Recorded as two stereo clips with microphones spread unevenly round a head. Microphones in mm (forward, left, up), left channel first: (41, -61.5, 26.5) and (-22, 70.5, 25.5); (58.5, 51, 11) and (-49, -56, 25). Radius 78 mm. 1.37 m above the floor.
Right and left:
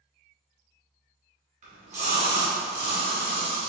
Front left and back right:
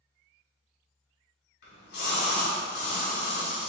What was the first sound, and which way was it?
A splash, 70° left.